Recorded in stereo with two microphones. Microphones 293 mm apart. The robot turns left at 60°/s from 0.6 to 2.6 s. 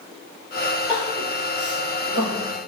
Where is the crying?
10° right (ahead or behind), 4 m; by 2.4 s 85° left, 4 m.